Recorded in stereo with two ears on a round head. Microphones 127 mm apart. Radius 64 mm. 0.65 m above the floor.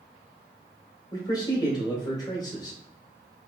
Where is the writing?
I don't hear writing.